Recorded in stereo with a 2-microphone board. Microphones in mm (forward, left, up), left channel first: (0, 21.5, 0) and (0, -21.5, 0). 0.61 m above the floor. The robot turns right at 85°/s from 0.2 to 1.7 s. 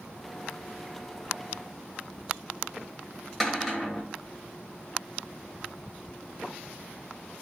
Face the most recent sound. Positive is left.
turn(degrees=0)  # may be behind; listen again after turning